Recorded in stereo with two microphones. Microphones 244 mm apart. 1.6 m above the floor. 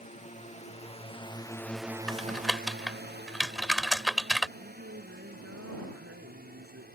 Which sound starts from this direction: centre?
Typing on a keyboard, at 2.1 s.